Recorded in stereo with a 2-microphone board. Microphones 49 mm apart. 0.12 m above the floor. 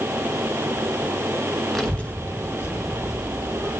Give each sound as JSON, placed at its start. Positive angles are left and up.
{"t": 1.8, "sound": "a child speaking", "side_deg": 5, "distance_m": 0.7}